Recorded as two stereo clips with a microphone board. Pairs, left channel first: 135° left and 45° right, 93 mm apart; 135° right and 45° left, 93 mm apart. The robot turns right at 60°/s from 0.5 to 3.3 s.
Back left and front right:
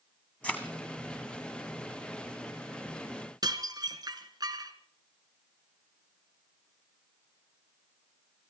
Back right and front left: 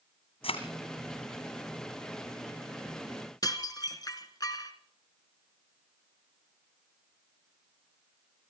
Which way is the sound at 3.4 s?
90° right.